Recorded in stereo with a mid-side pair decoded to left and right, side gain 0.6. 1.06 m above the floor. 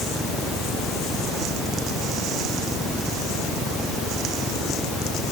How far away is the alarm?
No alarm in this recording.